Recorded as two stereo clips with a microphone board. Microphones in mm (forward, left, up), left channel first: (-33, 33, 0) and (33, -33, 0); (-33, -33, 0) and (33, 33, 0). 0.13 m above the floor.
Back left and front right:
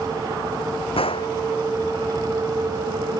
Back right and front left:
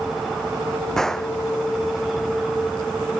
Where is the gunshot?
140° left.